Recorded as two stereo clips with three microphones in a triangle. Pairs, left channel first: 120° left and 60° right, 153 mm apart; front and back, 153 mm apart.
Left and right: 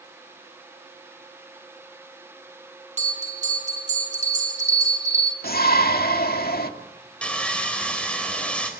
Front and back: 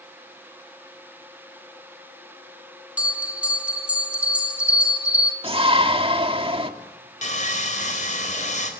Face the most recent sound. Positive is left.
turn(degrees=35)